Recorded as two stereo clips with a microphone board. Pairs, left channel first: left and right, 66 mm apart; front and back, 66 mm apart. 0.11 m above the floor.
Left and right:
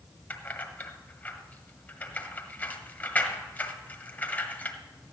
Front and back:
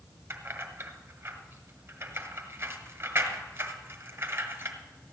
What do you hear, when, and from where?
0.3 s keys jangling: 145° left, 1.5 m